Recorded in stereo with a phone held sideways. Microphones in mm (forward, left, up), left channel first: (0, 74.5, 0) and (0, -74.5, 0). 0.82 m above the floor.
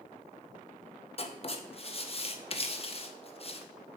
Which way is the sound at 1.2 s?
40° left (ahead or behind).